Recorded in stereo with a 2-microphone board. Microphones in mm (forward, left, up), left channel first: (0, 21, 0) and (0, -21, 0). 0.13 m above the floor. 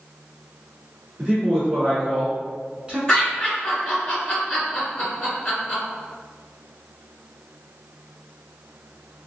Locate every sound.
1.2 s a man speaking: 25° right (ahead or behind), 1.3 m
3.1 s laughter: 15° left (ahead or behind), 2.0 m